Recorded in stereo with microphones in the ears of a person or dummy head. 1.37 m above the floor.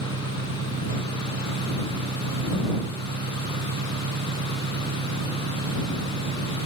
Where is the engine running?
55° right (ahead or behind).